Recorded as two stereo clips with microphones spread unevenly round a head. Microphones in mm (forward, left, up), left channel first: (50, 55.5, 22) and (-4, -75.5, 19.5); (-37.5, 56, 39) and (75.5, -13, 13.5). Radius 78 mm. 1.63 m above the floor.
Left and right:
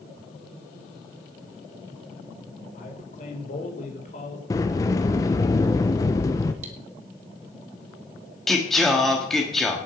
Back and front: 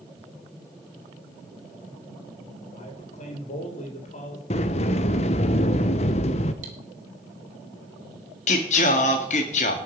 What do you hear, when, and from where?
2.7 s a man speaking: 115° left, 4 m
4.5 s a sliding door: 135° left, 0.8 m
6.6 s cutlery clinking: 80° right, 2.5 m
8.5 s singing: 155° left, 1.6 m